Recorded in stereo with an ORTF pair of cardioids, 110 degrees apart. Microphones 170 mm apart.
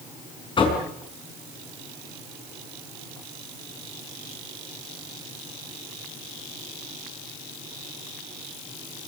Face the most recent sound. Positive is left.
turn(degrees=30)